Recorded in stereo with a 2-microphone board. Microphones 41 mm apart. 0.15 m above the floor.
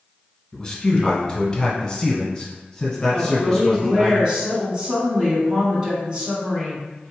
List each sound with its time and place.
0.5 s a man speaking: 15° left (ahead or behind), 1.3 m
3.1 s a woman speaking: 25° right (ahead or behind), 1.6 m